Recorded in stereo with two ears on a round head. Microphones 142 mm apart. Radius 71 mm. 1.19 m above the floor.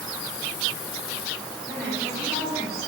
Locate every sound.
1.6 s a woman speaking: 15° right (ahead or behind), 3 m